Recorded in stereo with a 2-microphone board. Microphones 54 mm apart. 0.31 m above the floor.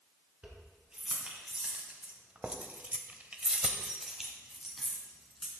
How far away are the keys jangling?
About 3 m.